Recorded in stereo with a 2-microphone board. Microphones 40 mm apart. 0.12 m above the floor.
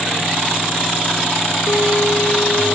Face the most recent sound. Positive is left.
turn(degrees=55)  # may be behind; listen again after turning